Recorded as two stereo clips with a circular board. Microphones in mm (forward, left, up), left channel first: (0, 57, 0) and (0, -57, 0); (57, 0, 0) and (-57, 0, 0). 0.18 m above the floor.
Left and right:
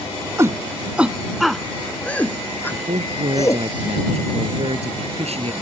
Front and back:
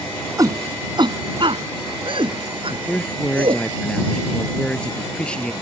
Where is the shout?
140° right; by 3.6 s 150° left.